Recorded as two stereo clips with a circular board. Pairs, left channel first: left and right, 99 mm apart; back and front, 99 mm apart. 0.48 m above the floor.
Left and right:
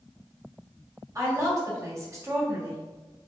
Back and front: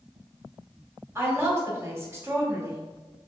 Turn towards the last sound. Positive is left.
turn(degrees=-50)